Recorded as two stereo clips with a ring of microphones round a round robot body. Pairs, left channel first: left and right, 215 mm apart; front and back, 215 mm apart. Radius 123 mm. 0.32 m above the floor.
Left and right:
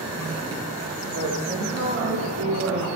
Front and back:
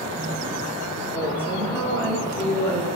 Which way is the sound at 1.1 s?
85° right.